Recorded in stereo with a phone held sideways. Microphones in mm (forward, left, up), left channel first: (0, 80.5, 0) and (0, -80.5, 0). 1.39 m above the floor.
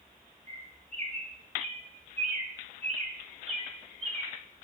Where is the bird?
45° right (ahead or behind), 3 m.